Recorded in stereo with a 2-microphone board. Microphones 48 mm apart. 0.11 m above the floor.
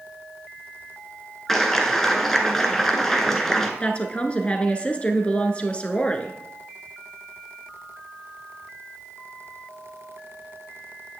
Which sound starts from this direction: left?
A woman speaking, at 3.8 s.